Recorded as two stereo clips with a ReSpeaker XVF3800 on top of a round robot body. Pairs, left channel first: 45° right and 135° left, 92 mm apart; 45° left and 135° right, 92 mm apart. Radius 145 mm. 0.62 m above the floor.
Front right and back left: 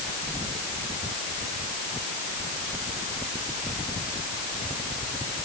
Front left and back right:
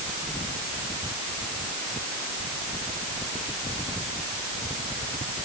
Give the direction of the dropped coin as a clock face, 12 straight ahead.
No dropped coin in this recording.